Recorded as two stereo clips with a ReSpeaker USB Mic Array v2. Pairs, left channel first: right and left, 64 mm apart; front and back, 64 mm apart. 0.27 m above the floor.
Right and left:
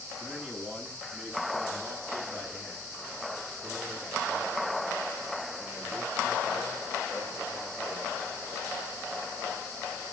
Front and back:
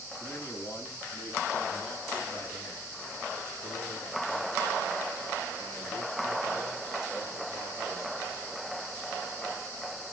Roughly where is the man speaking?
Ahead.